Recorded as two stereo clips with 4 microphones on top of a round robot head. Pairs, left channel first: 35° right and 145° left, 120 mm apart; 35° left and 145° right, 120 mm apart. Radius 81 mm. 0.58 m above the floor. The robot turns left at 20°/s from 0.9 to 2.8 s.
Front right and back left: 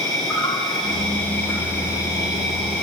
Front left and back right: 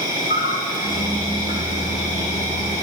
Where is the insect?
50° left, 4 m; by 2.8 s 15° left, 4 m.